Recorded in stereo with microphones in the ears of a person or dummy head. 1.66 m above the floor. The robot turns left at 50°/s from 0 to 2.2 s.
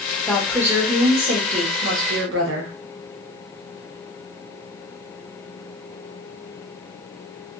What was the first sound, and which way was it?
A woman speaking, 5° left.